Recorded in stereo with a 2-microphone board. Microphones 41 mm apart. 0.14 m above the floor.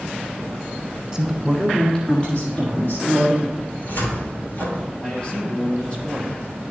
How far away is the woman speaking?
About 1.2 m.